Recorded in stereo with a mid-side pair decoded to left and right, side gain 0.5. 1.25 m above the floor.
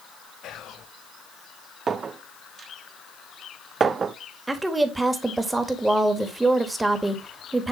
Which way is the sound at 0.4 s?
65° left.